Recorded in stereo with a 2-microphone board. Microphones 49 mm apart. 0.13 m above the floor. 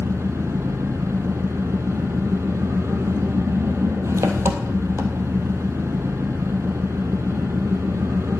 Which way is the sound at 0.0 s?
75° right (ahead or behind).